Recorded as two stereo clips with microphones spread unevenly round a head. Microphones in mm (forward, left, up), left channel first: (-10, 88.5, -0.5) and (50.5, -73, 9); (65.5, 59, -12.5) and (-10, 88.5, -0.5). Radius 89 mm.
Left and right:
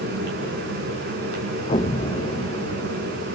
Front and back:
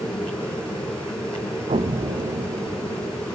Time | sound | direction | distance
0.0 | a fan | 105° right | 5.5 m
1.7 | an explosion | 170° left | 0.6 m